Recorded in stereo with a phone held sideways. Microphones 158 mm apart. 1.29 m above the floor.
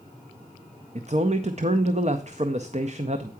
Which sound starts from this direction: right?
A man speaking, at 0.9 s.